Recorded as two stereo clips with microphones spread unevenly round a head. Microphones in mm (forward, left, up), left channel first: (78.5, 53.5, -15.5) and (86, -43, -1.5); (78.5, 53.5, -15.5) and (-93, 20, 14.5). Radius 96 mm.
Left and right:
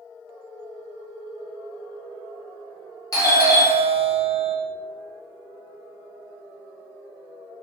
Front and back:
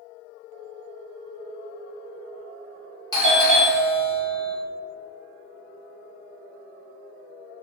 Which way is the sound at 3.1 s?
65° left.